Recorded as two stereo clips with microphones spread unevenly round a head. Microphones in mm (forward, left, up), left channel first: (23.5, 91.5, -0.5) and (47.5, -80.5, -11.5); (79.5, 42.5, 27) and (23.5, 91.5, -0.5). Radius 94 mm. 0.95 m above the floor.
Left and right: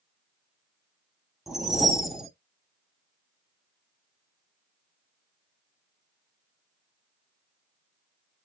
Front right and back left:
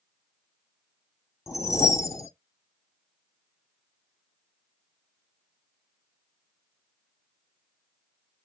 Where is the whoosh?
5° left, 0.8 m.